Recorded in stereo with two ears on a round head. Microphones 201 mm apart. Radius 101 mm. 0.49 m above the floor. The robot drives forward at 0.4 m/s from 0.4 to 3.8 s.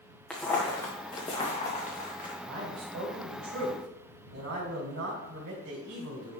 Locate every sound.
0.3 s footsteps: centre (ahead or behind), 2.5 m; by 2.3 s 40° left (ahead or behind), 3.5 m
2.4 s a man speaking: 50° right (ahead or behind), 3.5 m; by 6.4 s 55° right (ahead or behind), 3 m